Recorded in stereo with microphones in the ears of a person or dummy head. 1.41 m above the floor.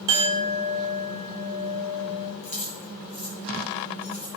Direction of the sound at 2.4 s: 35° left (ahead or behind).